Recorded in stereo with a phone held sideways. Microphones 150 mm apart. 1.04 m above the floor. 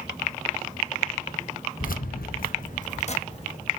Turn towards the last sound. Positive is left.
turn(degrees=40)  # may be behind; listen again after turning